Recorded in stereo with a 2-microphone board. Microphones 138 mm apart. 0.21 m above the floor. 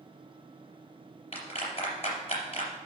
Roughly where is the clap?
Left.